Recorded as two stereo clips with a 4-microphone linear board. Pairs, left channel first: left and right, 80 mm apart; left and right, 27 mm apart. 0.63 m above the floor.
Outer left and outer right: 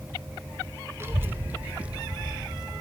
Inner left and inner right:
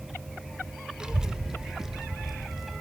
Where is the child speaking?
30° right (ahead or behind), 1.5 m; by 2.8 s 10° right (ahead or behind), 3 m.